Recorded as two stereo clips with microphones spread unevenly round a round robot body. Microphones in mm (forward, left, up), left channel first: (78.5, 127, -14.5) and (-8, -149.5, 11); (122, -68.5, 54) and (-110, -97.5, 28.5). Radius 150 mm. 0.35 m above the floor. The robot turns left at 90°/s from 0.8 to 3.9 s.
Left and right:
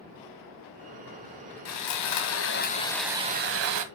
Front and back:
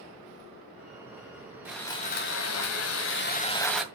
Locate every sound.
1.6 s sawing: 110° left, 2 m; by 3.8 s 90° right, 2 m